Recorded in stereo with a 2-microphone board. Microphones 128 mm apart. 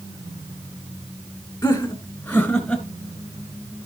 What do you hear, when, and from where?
1.6 s laughter: 20° left (ahead or behind), 1.5 m; by 2.8 s 5° left (ahead or behind), 1.9 m